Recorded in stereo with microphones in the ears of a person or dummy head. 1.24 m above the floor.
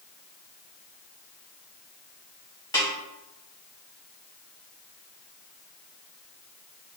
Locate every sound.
2.7 s a snare drum: 20° left (ahead or behind), 1.9 m